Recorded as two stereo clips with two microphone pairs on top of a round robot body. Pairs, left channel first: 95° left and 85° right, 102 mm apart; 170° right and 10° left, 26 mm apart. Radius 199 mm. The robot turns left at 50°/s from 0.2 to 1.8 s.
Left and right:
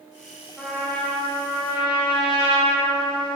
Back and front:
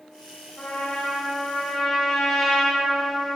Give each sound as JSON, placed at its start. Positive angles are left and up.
{"t": 0.6, "sound": "a trumpet", "azimuth_deg": -175, "distance_m": 2.0}